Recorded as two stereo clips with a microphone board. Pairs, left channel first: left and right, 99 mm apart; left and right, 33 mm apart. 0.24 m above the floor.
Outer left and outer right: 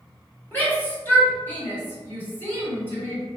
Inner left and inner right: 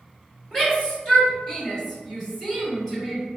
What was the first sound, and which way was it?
A shout, 20° left (ahead or behind).